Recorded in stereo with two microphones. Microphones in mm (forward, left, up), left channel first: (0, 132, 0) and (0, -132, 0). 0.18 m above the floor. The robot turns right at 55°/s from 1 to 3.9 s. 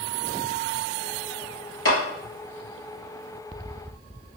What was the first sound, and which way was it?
A clap, 60° left (ahead or behind).